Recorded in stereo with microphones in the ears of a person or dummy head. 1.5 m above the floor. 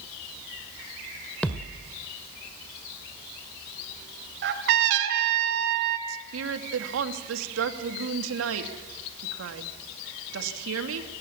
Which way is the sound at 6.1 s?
85° right.